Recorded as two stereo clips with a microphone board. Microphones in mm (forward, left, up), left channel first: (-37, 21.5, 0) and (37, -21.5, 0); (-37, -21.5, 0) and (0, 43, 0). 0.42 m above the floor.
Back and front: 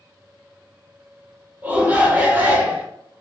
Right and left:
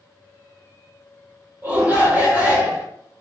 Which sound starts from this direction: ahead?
A shout, at 1.6 s.